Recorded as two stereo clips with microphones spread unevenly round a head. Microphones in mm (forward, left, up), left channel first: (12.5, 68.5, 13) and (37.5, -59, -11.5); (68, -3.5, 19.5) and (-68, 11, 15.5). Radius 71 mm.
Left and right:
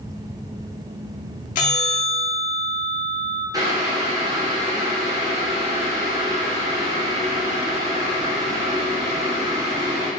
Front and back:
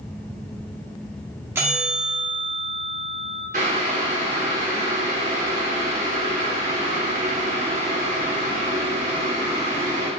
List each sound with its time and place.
1.6 s a bell: 100° left, 2.5 m
3.5 s boiling: 150° right, 2.5 m